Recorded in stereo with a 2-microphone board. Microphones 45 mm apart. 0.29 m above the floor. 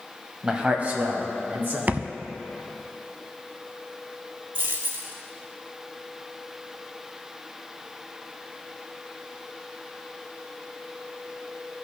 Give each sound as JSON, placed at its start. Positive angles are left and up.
{"t": 0.4, "sound": "a man speaking", "side_deg": -20, "distance_m": 1.1}
{"t": 1.9, "sound": "a thud", "side_deg": -35, "distance_m": 0.6}
{"t": 4.5, "sound": "a dropped coin", "side_deg": -55, "distance_m": 1.5}